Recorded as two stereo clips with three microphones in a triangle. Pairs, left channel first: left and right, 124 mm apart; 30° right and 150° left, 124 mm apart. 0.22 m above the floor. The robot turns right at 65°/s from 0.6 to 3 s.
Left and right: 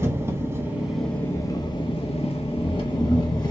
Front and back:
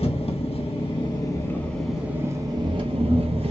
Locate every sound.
0.0 s an engine running: 25° right, 0.8 m; by 3.5 s 135° left, 0.8 m